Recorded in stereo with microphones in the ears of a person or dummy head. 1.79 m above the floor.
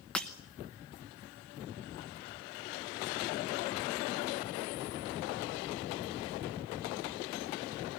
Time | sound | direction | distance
0.1 | breaking glass | centre (ahead or behind) | 1.1 m